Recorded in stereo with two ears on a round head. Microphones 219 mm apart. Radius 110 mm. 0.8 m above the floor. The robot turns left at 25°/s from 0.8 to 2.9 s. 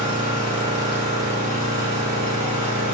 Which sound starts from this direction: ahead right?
An engine running, at 0.0 s.